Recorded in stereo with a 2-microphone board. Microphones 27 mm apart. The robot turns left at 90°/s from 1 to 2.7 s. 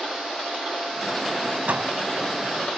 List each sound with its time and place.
1.7 s a door slam: 75° right (ahead or behind); by 1.9 s 50° right (ahead or behind)